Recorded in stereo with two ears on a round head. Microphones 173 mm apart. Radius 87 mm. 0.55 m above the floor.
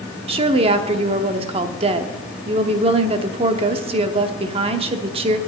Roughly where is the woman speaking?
Right.